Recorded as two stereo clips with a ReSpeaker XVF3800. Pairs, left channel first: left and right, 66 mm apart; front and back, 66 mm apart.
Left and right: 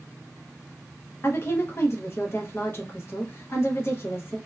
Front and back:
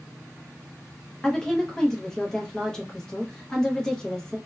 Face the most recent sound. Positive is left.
turn(degrees=75)